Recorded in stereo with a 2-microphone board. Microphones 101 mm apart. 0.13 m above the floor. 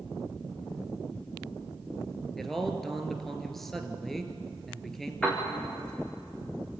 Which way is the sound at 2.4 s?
5° left (ahead or behind).